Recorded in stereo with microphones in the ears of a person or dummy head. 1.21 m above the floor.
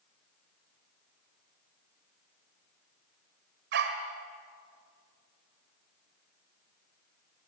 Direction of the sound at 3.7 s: 55° right (ahead or behind).